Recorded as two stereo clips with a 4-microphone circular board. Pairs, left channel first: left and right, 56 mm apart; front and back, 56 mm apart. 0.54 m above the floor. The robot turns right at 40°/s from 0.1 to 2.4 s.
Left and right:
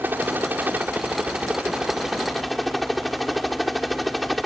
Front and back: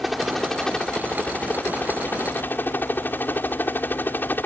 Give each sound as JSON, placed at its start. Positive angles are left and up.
{"t": 0.0, "sound": "a helicopter", "azimuth_deg": -90}